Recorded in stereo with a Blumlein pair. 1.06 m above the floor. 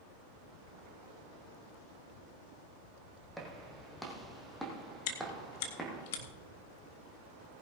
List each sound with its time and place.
3.4 s footsteps: 5° right, 3.5 m
5.1 s chewing: 50° left, 1.9 m